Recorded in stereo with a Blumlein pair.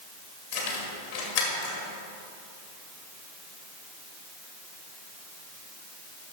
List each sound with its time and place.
0.5 s keys jangling: 55° left, 1.7 m